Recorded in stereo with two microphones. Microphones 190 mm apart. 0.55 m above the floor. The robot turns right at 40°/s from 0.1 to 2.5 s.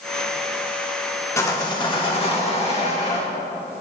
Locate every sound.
1.4 s sawing: 25° left, 1.4 m; by 3.3 s 70° left, 1.4 m